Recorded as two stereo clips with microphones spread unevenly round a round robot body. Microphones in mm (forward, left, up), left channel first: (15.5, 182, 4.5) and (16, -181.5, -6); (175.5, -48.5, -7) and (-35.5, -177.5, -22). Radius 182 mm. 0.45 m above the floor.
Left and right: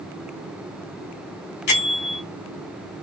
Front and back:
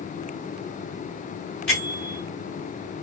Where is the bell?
120° left, 1.7 m.